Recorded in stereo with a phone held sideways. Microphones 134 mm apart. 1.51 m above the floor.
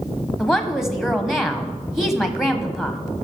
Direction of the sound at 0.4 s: 5° right (ahead or behind).